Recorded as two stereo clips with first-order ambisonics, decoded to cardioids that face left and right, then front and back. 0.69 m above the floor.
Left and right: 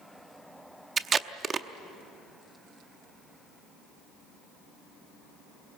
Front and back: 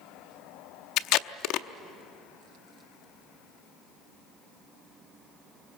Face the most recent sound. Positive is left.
turn(degrees=-25)